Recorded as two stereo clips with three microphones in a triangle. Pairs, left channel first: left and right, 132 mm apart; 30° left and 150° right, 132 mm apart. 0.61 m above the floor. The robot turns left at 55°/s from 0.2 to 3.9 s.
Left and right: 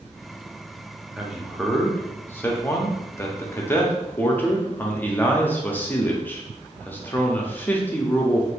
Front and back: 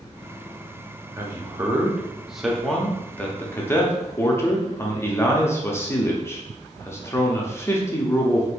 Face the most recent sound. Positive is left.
turn(degrees=45)